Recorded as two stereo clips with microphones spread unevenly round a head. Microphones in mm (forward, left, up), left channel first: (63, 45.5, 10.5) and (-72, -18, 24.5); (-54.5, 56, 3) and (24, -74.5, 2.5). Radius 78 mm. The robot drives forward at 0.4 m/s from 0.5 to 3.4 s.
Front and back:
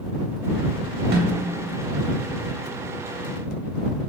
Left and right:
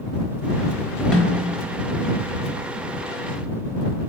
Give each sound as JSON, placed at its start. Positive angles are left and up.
{"t": 1.1, "sound": "a snare drum", "azimuth_deg": -155, "distance_m": 0.8}